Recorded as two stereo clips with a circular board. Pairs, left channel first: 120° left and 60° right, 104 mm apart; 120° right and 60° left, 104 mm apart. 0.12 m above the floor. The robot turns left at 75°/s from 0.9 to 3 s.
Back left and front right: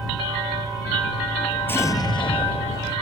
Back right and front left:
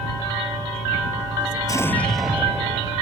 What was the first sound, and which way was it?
An explosion, 170° right.